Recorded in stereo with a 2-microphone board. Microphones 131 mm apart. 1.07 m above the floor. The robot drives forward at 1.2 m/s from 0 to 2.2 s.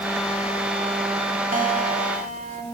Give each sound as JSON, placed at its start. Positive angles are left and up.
{"t": 1.5, "sound": "a guitar", "side_deg": -80, "distance_m": 2.0}